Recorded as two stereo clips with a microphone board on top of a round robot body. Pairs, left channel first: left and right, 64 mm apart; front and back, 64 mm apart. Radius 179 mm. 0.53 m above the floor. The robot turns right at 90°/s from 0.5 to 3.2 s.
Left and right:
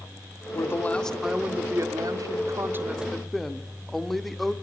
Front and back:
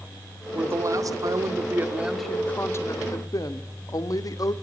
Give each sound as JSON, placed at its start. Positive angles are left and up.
{"t": 0.5, "sound": "a woman speaking", "azimuth_deg": 120, "distance_m": 2.0}